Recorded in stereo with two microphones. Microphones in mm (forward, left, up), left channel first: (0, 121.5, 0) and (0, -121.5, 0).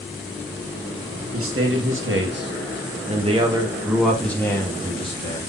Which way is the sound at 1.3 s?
70° right (ahead or behind).